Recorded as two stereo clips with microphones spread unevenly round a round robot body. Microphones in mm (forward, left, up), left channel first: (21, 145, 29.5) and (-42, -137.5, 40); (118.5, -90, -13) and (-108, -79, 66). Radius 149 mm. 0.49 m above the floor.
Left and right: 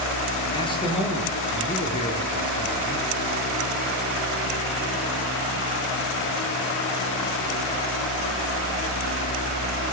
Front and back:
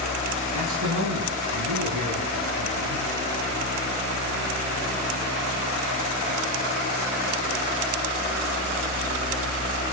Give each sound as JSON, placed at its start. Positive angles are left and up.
{"t": 0.5, "sound": "a man speaking", "azimuth_deg": 150, "distance_m": 8.5}